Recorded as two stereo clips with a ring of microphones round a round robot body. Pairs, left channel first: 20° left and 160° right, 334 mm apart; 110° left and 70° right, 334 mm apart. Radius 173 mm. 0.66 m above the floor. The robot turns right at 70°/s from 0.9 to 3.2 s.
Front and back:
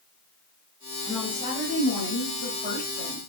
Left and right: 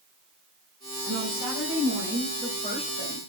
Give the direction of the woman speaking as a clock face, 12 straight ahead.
2 o'clock.